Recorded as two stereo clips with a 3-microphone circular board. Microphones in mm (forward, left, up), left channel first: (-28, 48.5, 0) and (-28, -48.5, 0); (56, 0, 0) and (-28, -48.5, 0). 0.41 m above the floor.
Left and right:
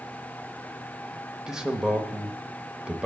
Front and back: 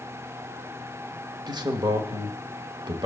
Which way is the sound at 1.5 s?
170° right.